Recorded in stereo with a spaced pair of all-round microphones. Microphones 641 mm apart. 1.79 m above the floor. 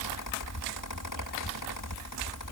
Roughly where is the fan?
Left.